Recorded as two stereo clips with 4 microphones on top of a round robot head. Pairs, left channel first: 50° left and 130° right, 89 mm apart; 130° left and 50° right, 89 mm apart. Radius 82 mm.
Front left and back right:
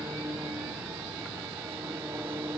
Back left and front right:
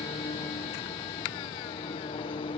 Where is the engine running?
160° left.